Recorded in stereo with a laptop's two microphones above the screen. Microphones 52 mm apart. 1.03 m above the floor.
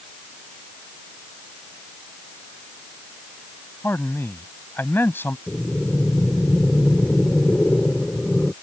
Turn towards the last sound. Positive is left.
turn(degrees=25)  # may be behind; listen again after turning